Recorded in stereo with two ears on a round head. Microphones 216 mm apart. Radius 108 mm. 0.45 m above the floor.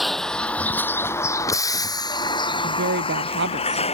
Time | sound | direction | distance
0.0 | a vehicle | centre (ahead or behind) | ?
2.6 | a woman speaking | 50° right (ahead or behind) | ?